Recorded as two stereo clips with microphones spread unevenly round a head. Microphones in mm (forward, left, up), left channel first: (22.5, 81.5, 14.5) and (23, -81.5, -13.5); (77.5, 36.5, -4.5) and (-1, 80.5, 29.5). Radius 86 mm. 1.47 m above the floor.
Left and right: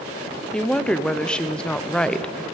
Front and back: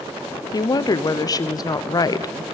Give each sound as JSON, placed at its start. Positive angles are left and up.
{"t": 0.5, "sound": "a woman speaking", "azimuth_deg": 0, "distance_m": 0.6}